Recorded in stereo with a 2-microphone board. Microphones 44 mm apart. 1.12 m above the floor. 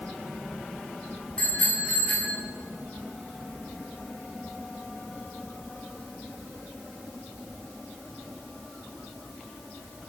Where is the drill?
I don't hear a drill.